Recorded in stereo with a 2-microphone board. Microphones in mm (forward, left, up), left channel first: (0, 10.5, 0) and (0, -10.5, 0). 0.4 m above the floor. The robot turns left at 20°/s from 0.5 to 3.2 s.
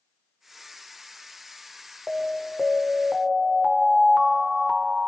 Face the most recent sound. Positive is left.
turn(degrees=-15)  # may be behind; listen again after turning